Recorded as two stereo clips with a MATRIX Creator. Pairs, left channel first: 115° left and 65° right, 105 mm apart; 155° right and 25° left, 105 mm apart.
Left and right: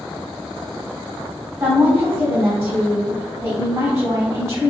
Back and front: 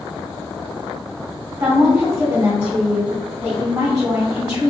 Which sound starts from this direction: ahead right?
A woman speaking, at 1.6 s.